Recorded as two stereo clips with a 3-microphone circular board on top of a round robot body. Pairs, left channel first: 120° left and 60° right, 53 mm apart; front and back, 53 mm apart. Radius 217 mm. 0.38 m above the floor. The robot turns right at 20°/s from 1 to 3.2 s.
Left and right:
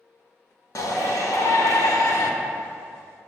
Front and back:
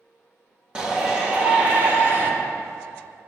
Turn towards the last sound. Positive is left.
turn(degrees=150)